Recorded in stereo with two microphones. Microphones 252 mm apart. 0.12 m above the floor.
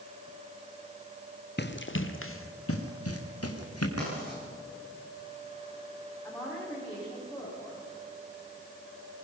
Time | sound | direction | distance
1.6 | running footsteps | 45° left (ahead or behind) | 1.6 m
4.0 | writing | 65° right (ahead or behind) | 9.5 m
6.2 | a woman speaking | 5° left (ahead or behind) | 9.5 m